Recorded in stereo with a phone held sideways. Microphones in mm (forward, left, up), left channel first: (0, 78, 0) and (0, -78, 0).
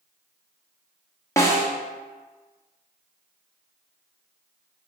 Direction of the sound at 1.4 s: 20° left (ahead or behind).